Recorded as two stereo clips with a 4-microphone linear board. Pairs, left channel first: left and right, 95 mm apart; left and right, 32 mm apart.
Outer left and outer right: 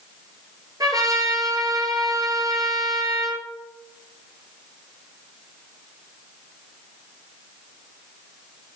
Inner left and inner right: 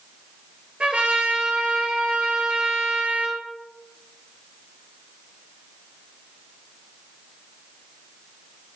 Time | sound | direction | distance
0.8 | a trumpet | 40° right (ahead or behind) | 2.5 m